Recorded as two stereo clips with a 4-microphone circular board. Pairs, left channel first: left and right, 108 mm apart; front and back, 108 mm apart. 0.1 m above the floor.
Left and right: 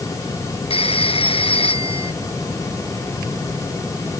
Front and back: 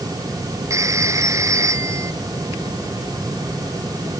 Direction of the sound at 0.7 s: 120° left.